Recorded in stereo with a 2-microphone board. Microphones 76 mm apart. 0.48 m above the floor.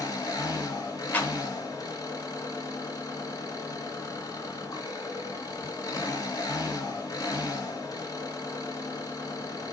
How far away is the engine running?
About 2.5 m.